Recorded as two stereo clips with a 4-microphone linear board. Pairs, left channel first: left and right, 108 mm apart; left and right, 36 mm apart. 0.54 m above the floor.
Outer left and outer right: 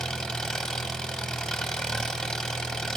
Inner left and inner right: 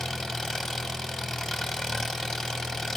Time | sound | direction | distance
0.0 | an engine running | 5° left (ahead or behind) | 0.8 m